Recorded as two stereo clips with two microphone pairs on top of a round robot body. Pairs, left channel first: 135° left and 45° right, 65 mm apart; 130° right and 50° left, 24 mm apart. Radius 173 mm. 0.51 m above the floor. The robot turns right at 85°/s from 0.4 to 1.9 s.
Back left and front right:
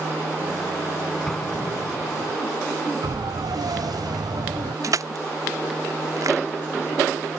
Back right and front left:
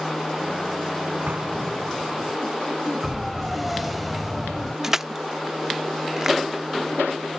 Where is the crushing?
15° right.